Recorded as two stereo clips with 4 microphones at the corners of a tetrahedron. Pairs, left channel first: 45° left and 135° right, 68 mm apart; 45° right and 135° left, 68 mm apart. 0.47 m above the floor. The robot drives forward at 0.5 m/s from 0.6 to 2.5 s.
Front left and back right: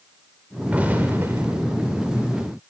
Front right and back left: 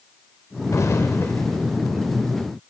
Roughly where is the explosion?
Right.